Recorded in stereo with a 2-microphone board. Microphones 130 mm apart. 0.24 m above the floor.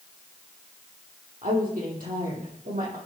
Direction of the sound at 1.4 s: 80° right.